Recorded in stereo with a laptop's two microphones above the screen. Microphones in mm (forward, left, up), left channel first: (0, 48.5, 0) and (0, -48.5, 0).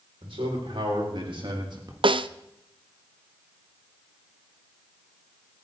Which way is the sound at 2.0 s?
60° right (ahead or behind).